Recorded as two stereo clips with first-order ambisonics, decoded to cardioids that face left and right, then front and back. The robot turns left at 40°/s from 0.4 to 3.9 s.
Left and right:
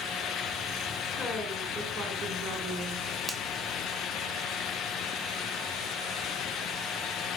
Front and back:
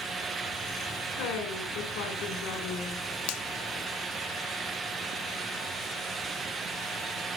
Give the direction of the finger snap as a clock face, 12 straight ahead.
12 o'clock.